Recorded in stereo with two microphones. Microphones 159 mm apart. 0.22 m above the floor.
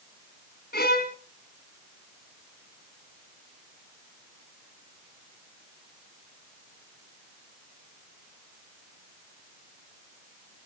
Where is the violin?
70° left (ahead or behind), 1.7 m.